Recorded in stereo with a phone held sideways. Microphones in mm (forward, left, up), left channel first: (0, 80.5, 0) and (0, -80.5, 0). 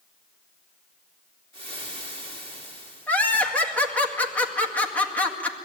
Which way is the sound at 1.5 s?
35° right (ahead or behind).